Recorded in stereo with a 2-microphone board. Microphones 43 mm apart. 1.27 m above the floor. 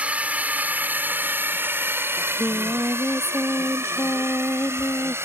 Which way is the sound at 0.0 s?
30° right (ahead or behind).